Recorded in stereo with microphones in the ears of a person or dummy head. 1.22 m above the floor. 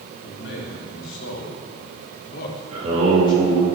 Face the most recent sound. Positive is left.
turn(degrees=-35)  # may be behind; listen again after turning